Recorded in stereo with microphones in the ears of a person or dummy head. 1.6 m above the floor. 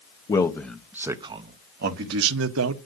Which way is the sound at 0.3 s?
20° left (ahead or behind).